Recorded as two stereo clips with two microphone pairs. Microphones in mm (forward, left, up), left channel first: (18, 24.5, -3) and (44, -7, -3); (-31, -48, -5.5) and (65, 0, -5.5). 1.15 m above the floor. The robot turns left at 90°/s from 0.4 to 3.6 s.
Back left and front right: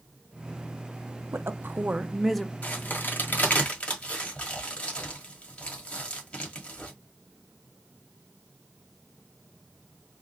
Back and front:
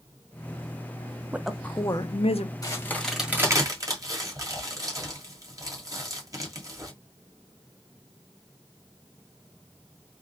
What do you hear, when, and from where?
1.3 s a woman speaking: 45° right, 0.6 m; by 2.5 s 155° right, 0.6 m
2.6 s a crack: 165° left, 1.5 m; by 6.9 s 75° left, 1.5 m